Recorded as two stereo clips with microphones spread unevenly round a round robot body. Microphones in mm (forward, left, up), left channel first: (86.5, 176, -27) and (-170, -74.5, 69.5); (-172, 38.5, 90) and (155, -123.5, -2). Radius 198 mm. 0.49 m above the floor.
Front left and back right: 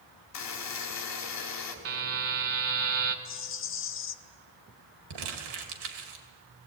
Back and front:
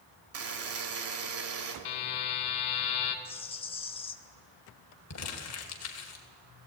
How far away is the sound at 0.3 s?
About 2.5 m.